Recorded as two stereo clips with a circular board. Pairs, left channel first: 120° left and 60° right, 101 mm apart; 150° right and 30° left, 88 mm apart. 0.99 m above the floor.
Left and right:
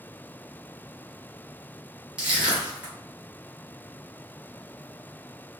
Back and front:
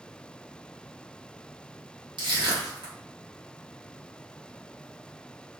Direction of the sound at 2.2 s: 20° left.